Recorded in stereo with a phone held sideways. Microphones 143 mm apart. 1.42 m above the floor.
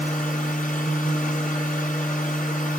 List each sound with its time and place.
0.0 s a machine running: 70° left (ahead or behind), 6 m